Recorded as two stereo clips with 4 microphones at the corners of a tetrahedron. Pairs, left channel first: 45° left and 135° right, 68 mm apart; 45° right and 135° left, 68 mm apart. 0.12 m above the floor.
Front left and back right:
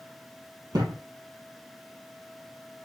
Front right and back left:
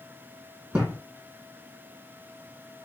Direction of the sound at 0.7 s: 155° right.